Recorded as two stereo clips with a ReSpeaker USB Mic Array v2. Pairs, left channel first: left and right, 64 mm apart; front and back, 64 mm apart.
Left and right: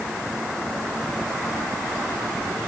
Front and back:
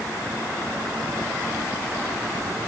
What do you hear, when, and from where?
Only background noise.